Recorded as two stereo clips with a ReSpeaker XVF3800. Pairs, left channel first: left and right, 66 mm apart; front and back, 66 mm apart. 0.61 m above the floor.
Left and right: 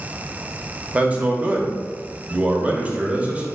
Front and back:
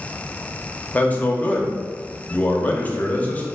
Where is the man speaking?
40° right, 0.8 m.